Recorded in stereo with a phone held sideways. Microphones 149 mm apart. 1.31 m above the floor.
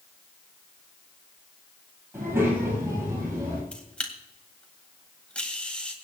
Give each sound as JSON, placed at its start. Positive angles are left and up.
{"t": 2.1, "sound": "a child speaking", "side_deg": -15, "distance_m": 7.5}
{"t": 3.7, "sound": "a camera shutter", "side_deg": 5, "distance_m": 2.0}